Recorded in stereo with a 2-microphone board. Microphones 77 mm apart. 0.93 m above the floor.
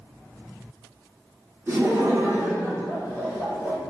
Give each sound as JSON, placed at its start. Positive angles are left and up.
{"t": 1.7, "sound": "laughter", "side_deg": -40, "distance_m": 1.1}